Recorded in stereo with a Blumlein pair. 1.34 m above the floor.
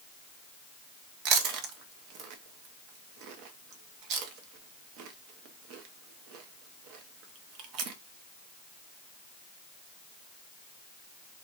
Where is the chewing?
40° right, 0.7 m.